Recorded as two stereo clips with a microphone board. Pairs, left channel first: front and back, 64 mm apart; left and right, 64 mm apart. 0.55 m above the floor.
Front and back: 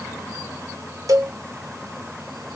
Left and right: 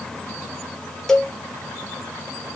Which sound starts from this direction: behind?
A cowbell, at 1.1 s.